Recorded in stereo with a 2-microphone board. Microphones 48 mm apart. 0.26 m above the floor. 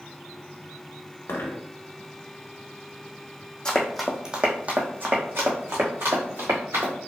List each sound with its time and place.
1.3 s a dropped coin: 65° left (ahead or behind), 0.6 m
3.6 s running footsteps: 15° left (ahead or behind), 0.7 m; by 6.9 s 70° right (ahead or behind), 1.9 m